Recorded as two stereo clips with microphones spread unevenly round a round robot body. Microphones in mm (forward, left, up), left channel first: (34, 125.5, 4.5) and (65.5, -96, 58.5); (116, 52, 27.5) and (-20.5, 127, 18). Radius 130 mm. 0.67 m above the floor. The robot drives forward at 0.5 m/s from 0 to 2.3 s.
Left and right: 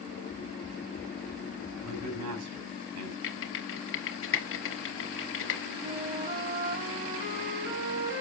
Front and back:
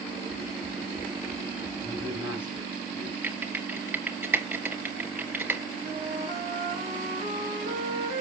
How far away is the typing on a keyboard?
About 2.5 m.